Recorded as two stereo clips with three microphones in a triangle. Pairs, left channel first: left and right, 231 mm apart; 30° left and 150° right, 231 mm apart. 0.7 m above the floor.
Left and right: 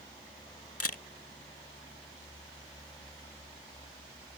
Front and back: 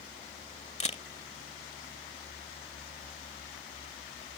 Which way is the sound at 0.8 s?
90° left.